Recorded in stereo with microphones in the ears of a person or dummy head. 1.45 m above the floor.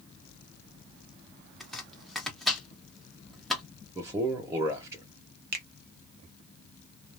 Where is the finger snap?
45° right (ahead or behind), 0.5 m.